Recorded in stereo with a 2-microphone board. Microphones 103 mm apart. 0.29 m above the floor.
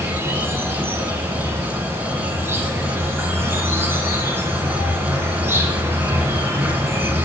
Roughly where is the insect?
Right.